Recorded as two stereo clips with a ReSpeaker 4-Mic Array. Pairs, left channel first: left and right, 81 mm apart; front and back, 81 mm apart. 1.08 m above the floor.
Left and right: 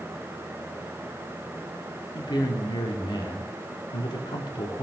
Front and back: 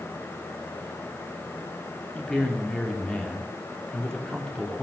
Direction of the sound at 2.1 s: 80° left.